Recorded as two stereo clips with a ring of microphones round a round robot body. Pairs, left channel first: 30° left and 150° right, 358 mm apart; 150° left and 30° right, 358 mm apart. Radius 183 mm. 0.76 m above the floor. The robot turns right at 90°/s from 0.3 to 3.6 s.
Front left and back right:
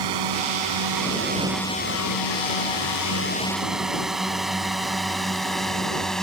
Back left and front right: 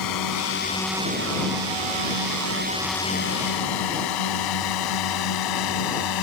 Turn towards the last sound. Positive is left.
turn(degrees=120)